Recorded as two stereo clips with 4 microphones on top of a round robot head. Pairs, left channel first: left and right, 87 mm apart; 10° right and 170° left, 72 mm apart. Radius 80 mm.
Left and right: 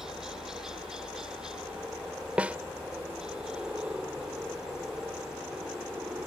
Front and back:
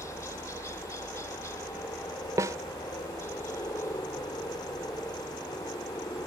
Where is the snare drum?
160° right.